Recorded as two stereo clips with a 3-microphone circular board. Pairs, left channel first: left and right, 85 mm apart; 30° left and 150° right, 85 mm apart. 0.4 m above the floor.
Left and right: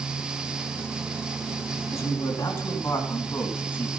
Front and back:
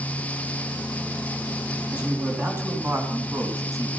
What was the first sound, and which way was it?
A man speaking, 140° left.